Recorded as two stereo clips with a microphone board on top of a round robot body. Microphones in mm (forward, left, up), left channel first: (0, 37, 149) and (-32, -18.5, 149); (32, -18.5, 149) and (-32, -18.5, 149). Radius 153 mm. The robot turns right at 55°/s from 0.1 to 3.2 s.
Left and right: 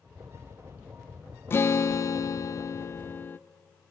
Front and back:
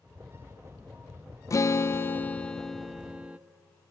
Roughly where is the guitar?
Ahead.